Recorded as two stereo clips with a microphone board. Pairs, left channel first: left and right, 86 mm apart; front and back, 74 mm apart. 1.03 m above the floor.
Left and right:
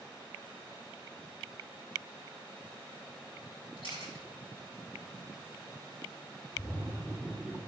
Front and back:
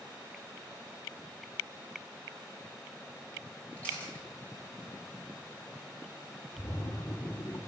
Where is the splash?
20° right, 2.5 m.